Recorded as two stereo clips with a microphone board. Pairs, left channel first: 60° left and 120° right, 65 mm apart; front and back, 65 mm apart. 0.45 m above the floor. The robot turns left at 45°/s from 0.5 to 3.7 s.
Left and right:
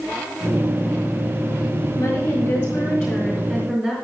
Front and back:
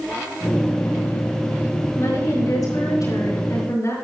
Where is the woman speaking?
55° left, 6 m; by 3.9 s 20° right, 6 m.